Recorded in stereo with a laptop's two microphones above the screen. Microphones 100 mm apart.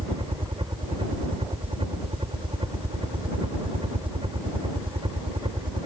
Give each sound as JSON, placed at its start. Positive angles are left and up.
{"t": 0.0, "sound": "a helicopter", "side_deg": -60}